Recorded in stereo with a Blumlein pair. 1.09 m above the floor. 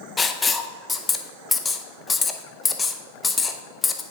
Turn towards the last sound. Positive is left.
turn(degrees=15)